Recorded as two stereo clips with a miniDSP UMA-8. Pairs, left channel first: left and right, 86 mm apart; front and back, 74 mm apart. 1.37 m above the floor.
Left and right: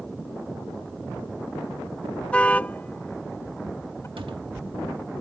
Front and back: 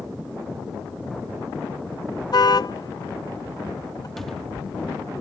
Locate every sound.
2.3 s a car horn: 15° left; by 4.1 s 30° left
4.2 s a cupboard door: 85° right